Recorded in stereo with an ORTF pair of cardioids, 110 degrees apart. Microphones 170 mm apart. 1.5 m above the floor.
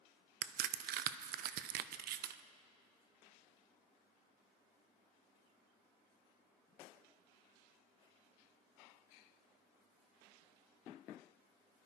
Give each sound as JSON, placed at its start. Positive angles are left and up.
{"t": 0.4, "sound": "a crack", "azimuth_deg": -65, "distance_m": 0.7}